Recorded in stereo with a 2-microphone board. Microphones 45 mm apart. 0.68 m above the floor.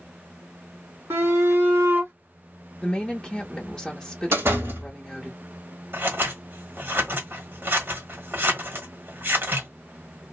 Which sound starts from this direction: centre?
A woman speaking, at 2.8 s.